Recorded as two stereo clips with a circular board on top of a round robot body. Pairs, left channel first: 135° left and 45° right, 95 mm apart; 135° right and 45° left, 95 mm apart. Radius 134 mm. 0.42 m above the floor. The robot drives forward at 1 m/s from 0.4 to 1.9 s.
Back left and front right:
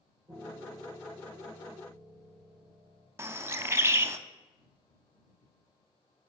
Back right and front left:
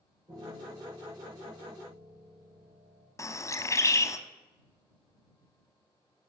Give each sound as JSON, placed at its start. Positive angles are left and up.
{"t": 0.3, "sound": "a piano", "azimuth_deg": 5, "distance_m": 3.0}
{"t": 3.2, "sound": "a bird", "azimuth_deg": -95, "distance_m": 0.6}